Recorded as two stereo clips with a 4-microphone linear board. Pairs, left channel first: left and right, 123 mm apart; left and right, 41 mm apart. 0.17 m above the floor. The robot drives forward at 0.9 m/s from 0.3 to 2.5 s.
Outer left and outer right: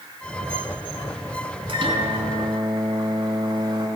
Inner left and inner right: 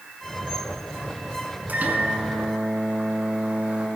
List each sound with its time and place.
1.7 s a microwave: 45° right (ahead or behind), 1.1 m; by 3.9 s 35° right (ahead or behind), 1.4 m